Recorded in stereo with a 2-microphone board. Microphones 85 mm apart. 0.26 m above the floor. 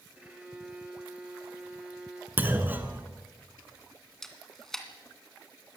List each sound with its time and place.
0.2 s a violin: 15° right (ahead or behind), 4 m
2.4 s a clunk: 20° right (ahead or behind), 1.7 m
4.2 s a camera shutter: 5° left (ahead or behind), 2 m